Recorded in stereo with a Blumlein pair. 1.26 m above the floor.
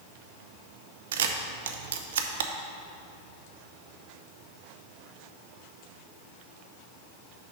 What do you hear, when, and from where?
1.1 s a camera shutter: 60° right, 0.6 m